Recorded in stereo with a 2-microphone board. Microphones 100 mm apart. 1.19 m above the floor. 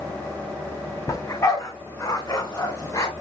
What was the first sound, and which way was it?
A dog barking, 35° left (ahead or behind).